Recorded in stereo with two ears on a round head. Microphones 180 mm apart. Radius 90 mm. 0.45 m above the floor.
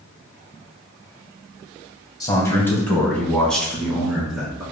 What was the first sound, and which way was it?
A man speaking, 20° left (ahead or behind).